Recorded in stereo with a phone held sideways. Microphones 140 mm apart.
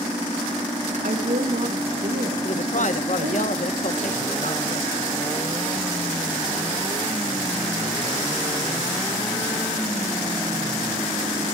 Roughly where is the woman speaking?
Right.